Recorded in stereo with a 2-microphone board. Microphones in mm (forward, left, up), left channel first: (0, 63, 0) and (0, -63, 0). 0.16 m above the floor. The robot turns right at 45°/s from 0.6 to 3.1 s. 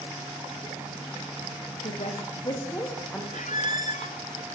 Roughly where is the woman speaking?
Left.